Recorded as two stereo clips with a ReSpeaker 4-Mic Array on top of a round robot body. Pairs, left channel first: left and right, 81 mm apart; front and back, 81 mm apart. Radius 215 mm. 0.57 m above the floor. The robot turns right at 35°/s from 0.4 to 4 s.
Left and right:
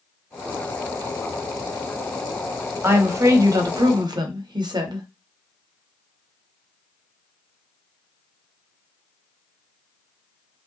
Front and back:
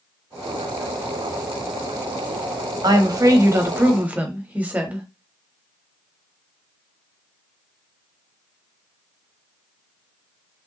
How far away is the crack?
No crack in this recording.